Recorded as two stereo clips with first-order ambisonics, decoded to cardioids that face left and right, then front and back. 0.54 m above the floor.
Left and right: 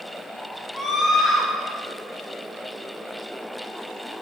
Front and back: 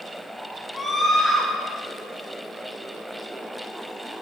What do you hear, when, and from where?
0.7 s a scream: 85° left, 0.8 m